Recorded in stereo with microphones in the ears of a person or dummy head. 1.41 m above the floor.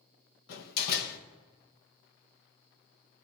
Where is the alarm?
I don't hear an alarm.